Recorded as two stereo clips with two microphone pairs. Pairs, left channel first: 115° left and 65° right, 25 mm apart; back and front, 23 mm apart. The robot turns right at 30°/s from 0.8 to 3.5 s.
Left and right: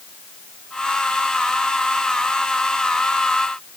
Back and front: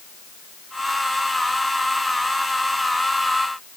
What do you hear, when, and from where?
Only background noise.